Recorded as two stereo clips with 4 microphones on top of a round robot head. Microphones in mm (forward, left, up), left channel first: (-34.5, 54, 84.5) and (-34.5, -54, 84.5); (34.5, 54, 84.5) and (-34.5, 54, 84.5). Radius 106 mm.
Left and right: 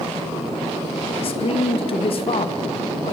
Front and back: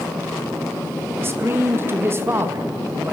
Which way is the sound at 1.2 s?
125° left.